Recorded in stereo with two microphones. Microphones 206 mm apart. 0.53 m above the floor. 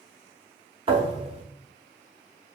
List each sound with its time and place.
0.9 s a thud: 30° right (ahead or behind), 0.6 m